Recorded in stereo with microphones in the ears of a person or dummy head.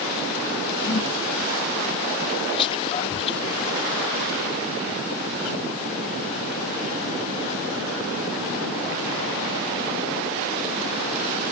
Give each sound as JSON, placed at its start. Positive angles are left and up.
{"t": 0.8, "sound": "a whoosh", "side_deg": 40}
{"t": 2.5, "sound": "whispering", "side_deg": 30}